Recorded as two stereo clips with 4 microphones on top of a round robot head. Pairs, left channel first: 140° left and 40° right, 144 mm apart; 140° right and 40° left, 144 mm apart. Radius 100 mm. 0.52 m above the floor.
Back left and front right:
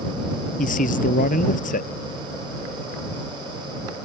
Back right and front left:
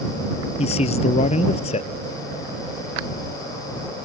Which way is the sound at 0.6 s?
170° left.